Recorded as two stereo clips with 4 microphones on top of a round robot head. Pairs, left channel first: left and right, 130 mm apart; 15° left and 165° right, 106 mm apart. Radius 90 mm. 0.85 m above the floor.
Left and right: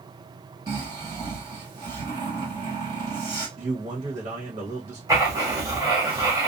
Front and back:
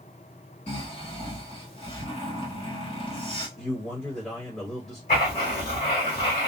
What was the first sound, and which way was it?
Snoring, 30° right.